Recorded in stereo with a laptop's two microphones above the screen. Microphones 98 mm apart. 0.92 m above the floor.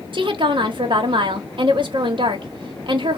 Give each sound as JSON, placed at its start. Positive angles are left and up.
{"t": 0.1, "sound": "a woman speaking", "side_deg": -55, "distance_m": 1.0}